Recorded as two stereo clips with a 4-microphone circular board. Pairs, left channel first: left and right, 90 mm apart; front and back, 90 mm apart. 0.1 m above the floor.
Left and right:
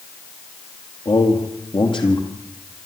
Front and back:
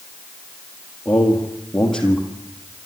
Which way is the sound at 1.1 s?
85° left.